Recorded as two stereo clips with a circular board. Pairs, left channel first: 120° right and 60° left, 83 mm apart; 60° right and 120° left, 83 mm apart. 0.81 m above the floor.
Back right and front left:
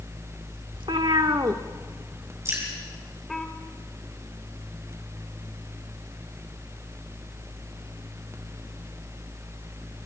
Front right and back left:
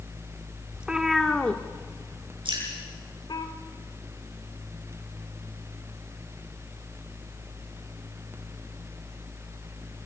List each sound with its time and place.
0.7 s a cat meowing: 45° left, 1.2 m; by 3.5 s 35° right, 1.9 m
2.5 s dripping: 115° left, 7 m